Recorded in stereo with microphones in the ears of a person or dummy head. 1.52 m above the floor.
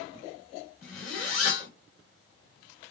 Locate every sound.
0.8 s a zipper: 45° left (ahead or behind), 2 m